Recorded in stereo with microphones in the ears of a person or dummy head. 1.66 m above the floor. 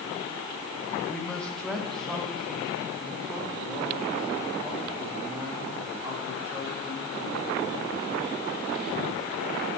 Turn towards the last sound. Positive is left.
turn(degrees=-10)  # may be behind; listen again after turning